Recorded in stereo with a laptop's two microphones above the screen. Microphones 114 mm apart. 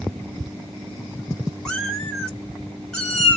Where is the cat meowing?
5° left (ahead or behind), 0.8 m.